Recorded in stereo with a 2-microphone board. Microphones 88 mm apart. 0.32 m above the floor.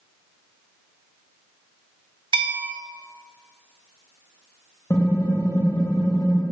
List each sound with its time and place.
2.3 s a bell: 65° right (ahead or behind), 0.8 m
4.9 s typing on a keyboard: 35° left (ahead or behind), 1.4 m